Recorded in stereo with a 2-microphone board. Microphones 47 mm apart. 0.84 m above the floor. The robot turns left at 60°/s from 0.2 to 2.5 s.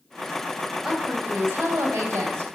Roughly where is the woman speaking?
Ahead.